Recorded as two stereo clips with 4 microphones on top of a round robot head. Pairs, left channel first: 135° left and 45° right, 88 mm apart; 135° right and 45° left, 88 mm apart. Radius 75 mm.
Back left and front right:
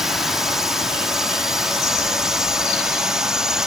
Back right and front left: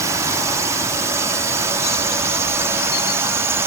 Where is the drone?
40° left; by 3.7 s 35° left.